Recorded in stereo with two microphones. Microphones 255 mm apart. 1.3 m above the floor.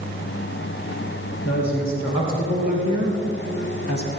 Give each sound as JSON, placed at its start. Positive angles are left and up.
{"t": 1.4, "sound": "a woman speaking", "side_deg": 80, "distance_m": 4.0}